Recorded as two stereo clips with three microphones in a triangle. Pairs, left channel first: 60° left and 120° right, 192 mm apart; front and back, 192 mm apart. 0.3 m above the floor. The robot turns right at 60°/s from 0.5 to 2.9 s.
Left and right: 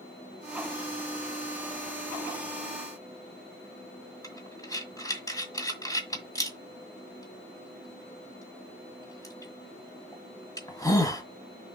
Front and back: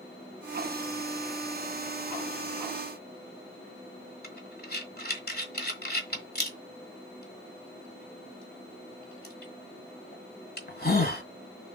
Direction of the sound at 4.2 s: 10° right.